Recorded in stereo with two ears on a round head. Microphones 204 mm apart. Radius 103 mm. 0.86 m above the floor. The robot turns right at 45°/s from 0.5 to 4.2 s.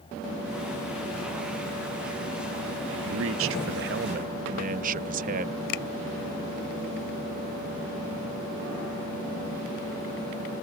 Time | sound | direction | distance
3.0 | a man speaking | 95° right | ?
5.7 | a finger snap | 70° left (ahead or behind) | ?